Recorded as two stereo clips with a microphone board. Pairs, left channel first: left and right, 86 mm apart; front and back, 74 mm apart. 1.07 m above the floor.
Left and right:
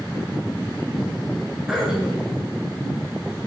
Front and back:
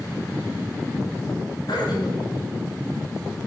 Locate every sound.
1.7 s throat clearing: 10° right, 8 m